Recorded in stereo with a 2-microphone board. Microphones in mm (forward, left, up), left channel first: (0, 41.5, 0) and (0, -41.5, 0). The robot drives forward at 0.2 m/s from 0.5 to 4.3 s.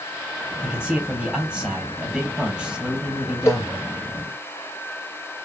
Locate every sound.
0.6 s a man speaking: 10° right (ahead or behind), 2.5 m; by 3.9 s 5° right (ahead or behind), 3 m
3.5 s a cowbell: 35° left (ahead or behind), 0.5 m